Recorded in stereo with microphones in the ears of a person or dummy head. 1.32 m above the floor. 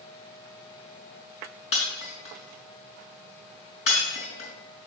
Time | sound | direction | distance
1.7 | breaking glass | 35° left (ahead or behind) | 4 m